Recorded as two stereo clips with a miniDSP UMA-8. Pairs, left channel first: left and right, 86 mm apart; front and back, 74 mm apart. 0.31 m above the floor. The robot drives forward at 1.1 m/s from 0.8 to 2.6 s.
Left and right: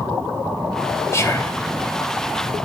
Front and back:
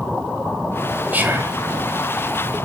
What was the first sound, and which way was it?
Whispering, 125° left.